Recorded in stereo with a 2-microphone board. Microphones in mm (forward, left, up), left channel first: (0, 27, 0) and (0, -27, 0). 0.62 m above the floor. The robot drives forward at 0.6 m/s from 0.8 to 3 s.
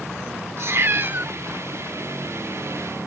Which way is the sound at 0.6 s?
50° right (ahead or behind).